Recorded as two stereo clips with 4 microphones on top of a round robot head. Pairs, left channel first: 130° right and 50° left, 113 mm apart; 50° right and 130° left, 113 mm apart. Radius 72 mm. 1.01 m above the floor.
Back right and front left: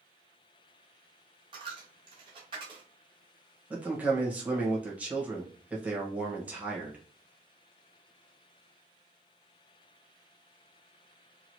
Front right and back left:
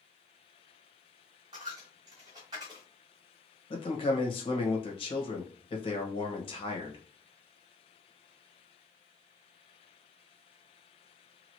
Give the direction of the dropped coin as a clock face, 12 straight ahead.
9 o'clock.